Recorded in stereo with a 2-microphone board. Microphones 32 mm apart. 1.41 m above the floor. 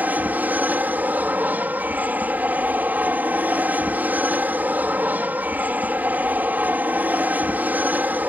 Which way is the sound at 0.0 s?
65° right (ahead or behind).